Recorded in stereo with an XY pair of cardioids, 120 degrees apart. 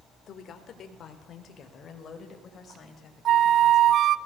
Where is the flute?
55° right, 0.8 m.